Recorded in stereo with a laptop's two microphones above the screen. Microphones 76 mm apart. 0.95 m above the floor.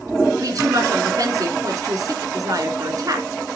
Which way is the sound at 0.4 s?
55° right (ahead or behind).